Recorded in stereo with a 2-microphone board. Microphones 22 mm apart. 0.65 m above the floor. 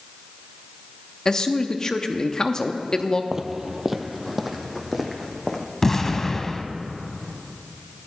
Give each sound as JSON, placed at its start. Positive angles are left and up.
{"t": 1.2, "sound": "a man speaking", "side_deg": 25, "distance_m": 0.6}
{"t": 3.3, "sound": "footsteps", "side_deg": -20, "distance_m": 0.6}
{"t": 5.8, "sound": "an explosion", "side_deg": 20, "distance_m": 0.6}